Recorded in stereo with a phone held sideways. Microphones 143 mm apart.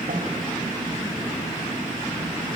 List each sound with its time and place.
0.1 s a snare drum: 70° right (ahead or behind), 3 m